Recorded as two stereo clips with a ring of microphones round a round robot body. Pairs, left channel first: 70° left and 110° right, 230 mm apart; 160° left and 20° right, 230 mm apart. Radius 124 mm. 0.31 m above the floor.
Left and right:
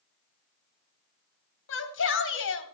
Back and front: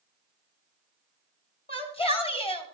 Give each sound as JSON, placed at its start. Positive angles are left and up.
{"t": 1.7, "sound": "a shout", "azimuth_deg": 95, "distance_m": 2.5}